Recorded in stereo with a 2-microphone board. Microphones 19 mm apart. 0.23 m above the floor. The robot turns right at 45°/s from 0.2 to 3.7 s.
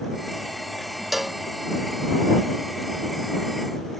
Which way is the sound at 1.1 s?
10° right (ahead or behind).